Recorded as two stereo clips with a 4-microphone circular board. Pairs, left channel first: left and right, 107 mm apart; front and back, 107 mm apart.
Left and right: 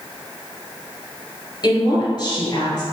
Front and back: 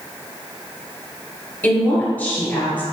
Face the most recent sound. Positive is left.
turn(degrees=65)